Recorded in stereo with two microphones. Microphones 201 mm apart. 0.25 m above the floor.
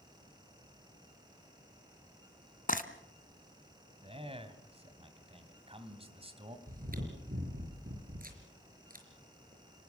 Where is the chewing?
45° right (ahead or behind), 5 m.